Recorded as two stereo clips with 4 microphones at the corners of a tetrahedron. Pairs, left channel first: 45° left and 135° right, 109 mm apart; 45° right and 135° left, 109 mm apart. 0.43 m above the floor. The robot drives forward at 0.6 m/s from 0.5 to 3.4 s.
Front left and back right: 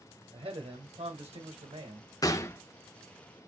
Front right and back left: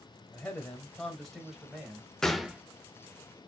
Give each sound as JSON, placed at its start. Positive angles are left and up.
{"t": 0.3, "sound": "a man speaking", "azimuth_deg": -120, "distance_m": 1.3}
{"t": 2.2, "sound": "a gunshot", "azimuth_deg": 35, "distance_m": 0.7}